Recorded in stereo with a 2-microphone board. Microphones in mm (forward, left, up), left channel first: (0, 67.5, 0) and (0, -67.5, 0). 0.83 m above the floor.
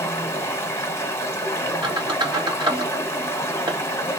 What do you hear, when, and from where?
0.0 s running water: 20° left (ahead or behind), 0.8 m
1.8 s a squeak: 35° right (ahead or behind), 1.2 m